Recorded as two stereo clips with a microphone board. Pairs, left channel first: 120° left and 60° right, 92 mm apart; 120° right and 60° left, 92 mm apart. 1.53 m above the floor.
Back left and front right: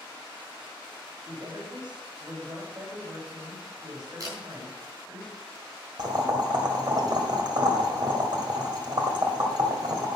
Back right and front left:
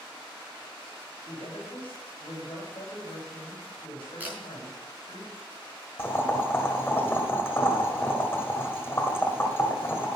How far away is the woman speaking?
About 6.5 m.